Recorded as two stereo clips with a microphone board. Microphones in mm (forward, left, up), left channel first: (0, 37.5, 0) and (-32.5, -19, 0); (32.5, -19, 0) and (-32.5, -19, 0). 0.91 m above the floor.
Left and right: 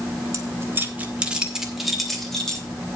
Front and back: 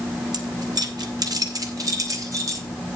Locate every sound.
0.3 s keys jangling: 160° right, 1.4 m; by 2.7 s 140° left, 3 m